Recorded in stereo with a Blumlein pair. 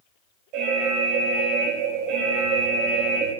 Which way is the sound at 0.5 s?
40° right.